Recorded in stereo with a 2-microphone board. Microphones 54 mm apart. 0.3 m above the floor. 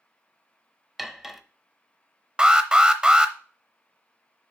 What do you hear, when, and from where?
1.0 s cutlery clinking: 5° right (ahead or behind), 0.7 m
2.4 s an alarm: 15° right (ahead or behind), 0.7 m